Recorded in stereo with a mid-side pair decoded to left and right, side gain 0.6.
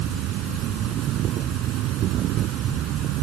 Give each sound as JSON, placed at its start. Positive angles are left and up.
{"t": 0.0, "sound": "an insect", "azimuth_deg": -60}